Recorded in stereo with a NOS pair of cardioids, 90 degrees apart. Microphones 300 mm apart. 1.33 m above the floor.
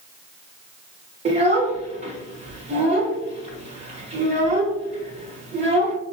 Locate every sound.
1.2 s a child speaking: 25° right, 0.5 m